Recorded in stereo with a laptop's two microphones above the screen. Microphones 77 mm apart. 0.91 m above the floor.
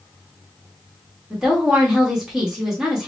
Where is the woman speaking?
10° right (ahead or behind), 1.3 m.